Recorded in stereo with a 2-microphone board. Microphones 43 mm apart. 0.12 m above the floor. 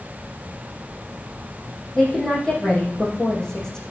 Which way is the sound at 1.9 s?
15° left (ahead or behind).